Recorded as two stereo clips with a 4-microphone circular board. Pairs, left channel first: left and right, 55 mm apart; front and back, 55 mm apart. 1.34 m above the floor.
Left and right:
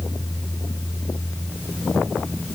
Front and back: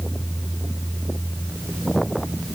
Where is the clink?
I don't hear a clink.